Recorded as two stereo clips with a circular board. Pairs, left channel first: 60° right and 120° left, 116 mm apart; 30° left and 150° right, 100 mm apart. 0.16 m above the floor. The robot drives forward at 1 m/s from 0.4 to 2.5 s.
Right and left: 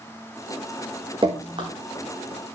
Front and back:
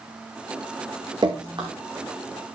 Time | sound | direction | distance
1.2 | dripping | 165° left | 4 m